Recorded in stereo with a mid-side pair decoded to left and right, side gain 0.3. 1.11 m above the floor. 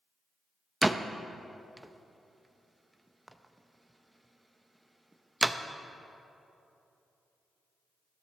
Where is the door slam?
15° right, 0.7 m.